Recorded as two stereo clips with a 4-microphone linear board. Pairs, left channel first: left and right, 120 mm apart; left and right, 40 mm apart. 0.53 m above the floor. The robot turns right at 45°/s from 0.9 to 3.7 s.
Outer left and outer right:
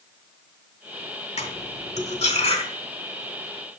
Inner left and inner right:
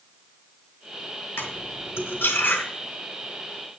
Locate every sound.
1.4 s cutlery clinking: 65° left (ahead or behind), 0.8 m; by 2.6 s 50° left (ahead or behind), 0.8 m